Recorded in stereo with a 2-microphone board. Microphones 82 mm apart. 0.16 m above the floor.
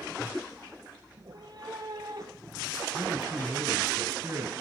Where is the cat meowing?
60° right (ahead or behind), 1.8 m; by 2.8 s 45° right (ahead or behind), 3.5 m.